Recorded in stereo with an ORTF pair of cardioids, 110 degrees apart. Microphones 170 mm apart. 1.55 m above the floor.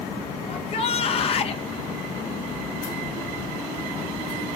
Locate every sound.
0.5 s a shout: 40° left, 1.8 m